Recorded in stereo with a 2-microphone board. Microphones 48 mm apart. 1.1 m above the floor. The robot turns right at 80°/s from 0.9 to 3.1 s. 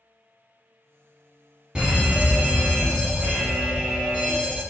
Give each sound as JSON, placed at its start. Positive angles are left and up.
{"t": 1.8, "sound": "a fire alarm", "azimuth_deg": -155, "distance_m": 1.3}